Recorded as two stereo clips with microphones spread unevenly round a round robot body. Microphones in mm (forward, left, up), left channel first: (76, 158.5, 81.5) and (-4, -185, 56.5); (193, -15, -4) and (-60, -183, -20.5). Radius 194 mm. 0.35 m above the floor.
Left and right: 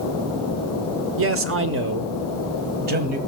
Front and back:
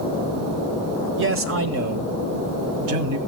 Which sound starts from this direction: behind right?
A man speaking, at 1.2 s.